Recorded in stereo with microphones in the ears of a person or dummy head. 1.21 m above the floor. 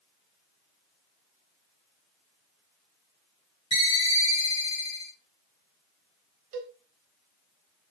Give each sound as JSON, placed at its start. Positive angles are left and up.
{"t": 3.7, "sound": "a ringtone", "side_deg": 30, "distance_m": 0.8}
{"t": 6.5, "sound": "a cowbell", "side_deg": -50, "distance_m": 1.2}